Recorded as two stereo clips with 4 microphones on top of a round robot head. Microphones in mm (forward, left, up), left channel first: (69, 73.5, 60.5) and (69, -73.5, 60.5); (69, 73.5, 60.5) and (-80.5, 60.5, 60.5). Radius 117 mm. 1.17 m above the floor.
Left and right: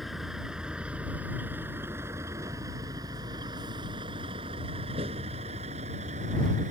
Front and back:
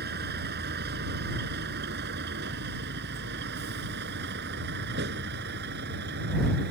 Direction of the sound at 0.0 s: Straight behind.